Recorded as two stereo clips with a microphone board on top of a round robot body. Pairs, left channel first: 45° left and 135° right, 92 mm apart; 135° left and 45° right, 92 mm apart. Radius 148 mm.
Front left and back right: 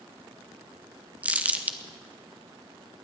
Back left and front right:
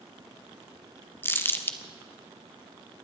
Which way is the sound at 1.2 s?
170° left.